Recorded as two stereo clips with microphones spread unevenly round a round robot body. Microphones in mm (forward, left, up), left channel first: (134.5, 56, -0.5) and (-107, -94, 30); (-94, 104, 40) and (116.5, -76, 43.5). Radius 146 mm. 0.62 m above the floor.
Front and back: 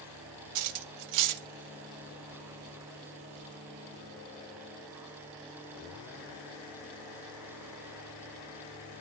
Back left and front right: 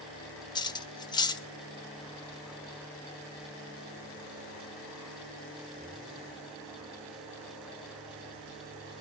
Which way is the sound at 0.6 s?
145° right.